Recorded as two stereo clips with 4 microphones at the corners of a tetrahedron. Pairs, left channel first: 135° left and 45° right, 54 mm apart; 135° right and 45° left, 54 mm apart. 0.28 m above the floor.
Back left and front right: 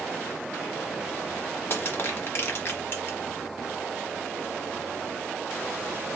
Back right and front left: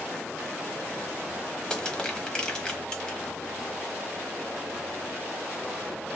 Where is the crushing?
155° left, 1.0 m.